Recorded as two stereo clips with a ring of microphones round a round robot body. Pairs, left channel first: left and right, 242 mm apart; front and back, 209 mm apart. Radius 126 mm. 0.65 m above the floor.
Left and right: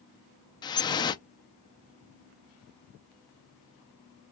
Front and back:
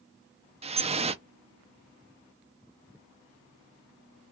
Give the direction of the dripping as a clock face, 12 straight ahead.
7 o'clock.